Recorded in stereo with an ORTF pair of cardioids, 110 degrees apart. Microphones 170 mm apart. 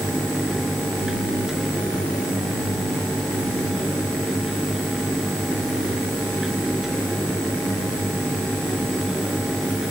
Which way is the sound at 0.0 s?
5° right.